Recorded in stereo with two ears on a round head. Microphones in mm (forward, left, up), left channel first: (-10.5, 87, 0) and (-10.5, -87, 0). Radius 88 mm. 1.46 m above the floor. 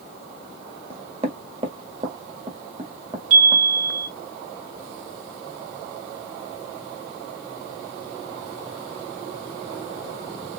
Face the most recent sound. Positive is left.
turn(degrees=-85)